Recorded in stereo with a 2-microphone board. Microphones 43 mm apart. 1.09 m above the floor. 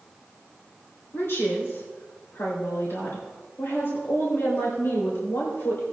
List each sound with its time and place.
1.1 s a woman speaking: 70° left (ahead or behind), 3.5 m